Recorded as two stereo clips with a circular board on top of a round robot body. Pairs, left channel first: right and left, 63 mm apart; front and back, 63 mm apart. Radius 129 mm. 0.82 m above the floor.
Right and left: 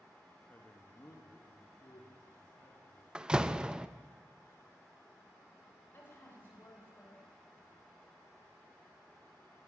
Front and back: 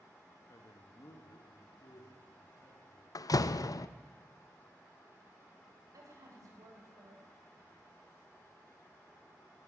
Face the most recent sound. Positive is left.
turn(degrees=-145)